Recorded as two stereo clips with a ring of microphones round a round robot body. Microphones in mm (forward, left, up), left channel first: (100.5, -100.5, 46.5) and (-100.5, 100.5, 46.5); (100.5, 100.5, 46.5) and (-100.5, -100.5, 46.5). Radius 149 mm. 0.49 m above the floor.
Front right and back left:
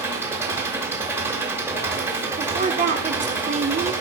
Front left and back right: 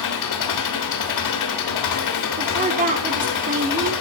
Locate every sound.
0.0 s an engine running: 55° left, 1.0 m
2.4 s a woman speaking: straight behind, 1.0 m